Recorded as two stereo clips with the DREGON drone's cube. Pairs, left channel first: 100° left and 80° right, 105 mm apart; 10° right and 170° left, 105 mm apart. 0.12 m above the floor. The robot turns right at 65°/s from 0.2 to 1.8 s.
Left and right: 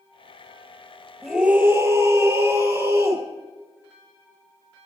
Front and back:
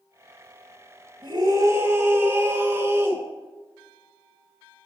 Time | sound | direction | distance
1.2 | a scream | 165° right | 1.8 m